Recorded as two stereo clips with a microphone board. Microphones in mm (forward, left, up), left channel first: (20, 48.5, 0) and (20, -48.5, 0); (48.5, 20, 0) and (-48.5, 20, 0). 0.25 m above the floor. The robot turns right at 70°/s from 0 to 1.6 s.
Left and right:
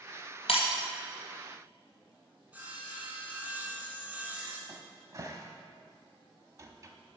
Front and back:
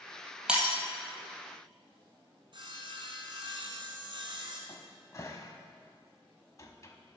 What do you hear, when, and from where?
0.5 s breaking glass: 100° left, 1.5 m; by 0.7 s 115° left, 1.5 m
2.5 s sawing: 160° right, 1.4 m
4.7 s a cupboard door: 45° right, 0.7 m